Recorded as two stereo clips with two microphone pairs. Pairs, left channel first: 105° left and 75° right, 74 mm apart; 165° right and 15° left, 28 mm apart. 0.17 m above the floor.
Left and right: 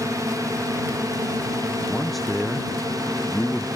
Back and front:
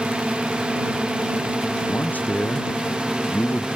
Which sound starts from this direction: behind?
A man speaking, at 1.9 s.